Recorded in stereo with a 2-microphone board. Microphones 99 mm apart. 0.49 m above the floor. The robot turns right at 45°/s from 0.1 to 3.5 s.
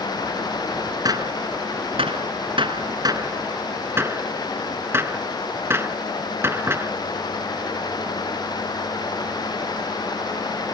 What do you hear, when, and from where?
1.1 s a gunshot: 40° right (ahead or behind); by 6.9 s 25° right (ahead or behind)